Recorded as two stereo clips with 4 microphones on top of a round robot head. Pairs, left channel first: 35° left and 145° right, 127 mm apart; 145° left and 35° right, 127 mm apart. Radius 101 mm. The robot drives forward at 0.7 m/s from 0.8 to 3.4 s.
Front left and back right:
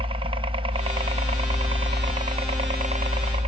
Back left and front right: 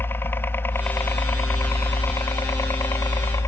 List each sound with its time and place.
0.0 s a helicopter: 150° right; by 3.5 s 155° right